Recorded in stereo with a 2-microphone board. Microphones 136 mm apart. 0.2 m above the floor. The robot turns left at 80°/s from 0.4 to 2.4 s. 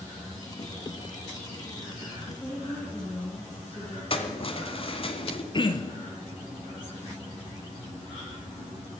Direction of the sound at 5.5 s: 35° left (ahead or behind).